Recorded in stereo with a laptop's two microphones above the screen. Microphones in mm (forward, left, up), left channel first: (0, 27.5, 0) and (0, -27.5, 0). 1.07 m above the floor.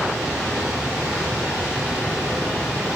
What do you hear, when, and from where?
0.0 s a machine running: 20° right (ahead or behind), 3.5 m